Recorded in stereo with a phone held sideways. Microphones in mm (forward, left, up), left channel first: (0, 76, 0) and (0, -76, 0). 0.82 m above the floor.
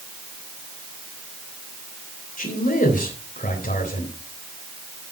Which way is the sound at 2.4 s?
60° left (ahead or behind).